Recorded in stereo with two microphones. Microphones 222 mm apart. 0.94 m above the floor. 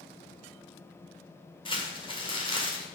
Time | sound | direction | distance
1.6 | crumpling | 25° left (ahead or behind) | 2.0 m